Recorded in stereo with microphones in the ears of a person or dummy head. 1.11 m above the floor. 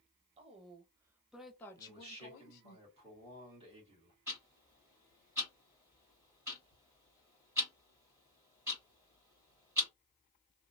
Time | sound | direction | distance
0.4 | a woman speaking | 30° right (ahead or behind) | 1.0 m
1.8 | a man speaking | 30° right (ahead or behind) | 1.6 m
4.3 | ticking | 15° right (ahead or behind) | 1.6 m